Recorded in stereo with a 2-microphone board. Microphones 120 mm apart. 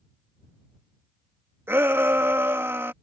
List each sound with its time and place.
1.7 s a shout: 20° right (ahead or behind)